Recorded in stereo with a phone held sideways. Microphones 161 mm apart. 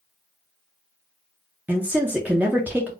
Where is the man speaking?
10° right (ahead or behind), 0.5 m.